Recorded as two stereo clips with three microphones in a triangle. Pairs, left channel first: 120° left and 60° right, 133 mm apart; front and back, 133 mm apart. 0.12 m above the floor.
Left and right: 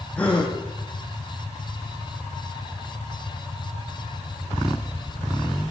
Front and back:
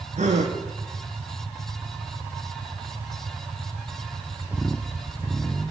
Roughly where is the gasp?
Behind.